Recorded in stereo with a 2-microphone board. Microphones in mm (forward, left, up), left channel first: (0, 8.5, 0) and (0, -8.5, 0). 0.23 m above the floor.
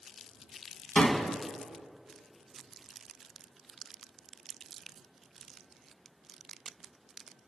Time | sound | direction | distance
0.9 | a door slam | 45° left (ahead or behind) | 1.5 m